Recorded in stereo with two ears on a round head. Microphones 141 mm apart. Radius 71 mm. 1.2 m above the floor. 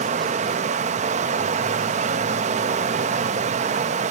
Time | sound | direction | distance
0.0 | running water | 45° right (ahead or behind) | 0.9 m